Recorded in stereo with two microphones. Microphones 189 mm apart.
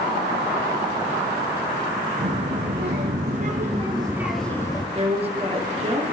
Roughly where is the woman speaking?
Right.